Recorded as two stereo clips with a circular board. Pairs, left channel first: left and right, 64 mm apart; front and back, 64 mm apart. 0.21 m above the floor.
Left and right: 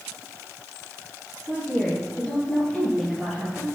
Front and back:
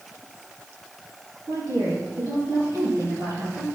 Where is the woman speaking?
170° left, 5.5 m; by 3.7 s straight behind, 6.5 m.